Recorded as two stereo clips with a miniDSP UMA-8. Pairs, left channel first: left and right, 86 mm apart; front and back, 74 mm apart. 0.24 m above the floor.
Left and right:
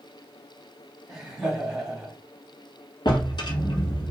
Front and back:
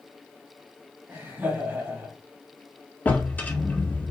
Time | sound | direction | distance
1.1 | laughter | 165° right | 1.5 m
3.0 | a drawer | 65° left | 0.8 m